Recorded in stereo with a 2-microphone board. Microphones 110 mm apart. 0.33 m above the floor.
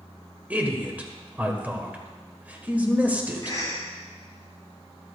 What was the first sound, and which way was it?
A man speaking, 15° right (ahead or behind).